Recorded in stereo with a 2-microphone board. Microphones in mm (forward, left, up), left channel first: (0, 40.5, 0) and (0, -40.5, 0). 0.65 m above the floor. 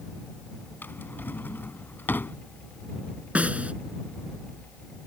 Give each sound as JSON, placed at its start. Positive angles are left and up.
{"t": 0.8, "sound": "a drawer", "side_deg": 25}
{"t": 3.4, "sound": "a snare drum", "side_deg": -15}